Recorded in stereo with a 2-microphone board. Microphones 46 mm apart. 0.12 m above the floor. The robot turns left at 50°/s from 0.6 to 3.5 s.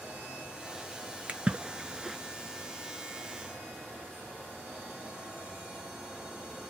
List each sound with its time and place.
1.3 s a splash: 30° right (ahead or behind), 0.5 m; by 2.2 s 5° right (ahead or behind), 0.5 m